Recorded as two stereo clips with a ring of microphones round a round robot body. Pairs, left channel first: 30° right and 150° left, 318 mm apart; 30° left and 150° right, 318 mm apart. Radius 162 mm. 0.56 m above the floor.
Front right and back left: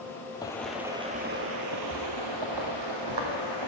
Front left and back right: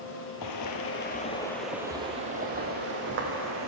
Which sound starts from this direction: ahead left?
Footsteps, at 0.4 s.